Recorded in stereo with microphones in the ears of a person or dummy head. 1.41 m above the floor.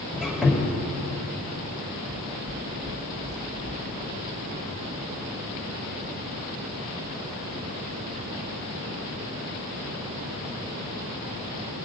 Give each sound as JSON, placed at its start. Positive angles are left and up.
{"t": 0.1, "sound": "a squeak", "side_deg": -5, "distance_m": 2.5}
{"t": 2.1, "sound": "footsteps", "side_deg": 0, "distance_m": 2.5}